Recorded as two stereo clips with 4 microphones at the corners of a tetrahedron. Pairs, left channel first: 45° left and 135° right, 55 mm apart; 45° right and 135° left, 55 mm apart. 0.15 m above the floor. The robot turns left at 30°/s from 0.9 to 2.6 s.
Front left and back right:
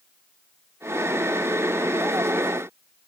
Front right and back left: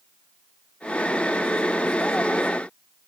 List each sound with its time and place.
Only background noise.